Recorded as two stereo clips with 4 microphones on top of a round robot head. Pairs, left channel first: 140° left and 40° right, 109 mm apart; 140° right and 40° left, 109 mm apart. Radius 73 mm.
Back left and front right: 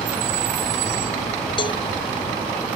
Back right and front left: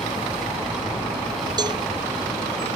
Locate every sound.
1.6 s a cowbell: 90° left